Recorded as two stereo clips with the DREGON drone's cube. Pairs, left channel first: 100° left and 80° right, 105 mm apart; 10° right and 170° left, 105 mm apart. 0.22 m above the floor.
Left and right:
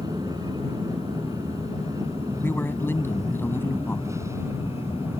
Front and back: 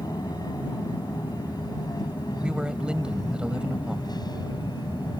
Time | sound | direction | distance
0.0 | an aircraft | 45° right | ?
2.4 | a man speaking | 105° left | ?